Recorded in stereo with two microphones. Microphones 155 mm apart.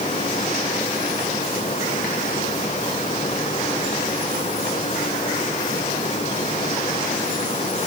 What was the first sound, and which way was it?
Only background noise.